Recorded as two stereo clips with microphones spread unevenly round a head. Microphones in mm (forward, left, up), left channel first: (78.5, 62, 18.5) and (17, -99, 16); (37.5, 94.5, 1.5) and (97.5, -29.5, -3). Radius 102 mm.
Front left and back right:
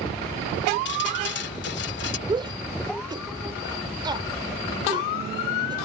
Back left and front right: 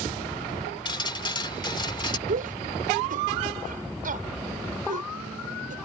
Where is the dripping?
65° left.